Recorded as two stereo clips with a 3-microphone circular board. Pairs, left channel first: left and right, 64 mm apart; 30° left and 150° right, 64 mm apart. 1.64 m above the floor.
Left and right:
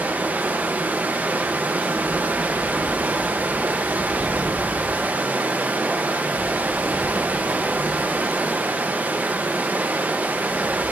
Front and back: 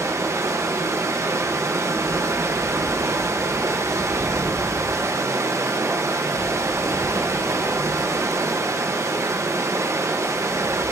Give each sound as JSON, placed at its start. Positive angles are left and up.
{"t": 0.0, "sound": "running water", "azimuth_deg": -145, "distance_m": 1.0}